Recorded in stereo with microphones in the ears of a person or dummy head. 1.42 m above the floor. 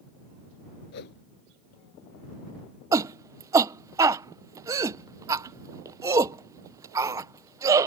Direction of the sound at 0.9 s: 60° left (ahead or behind).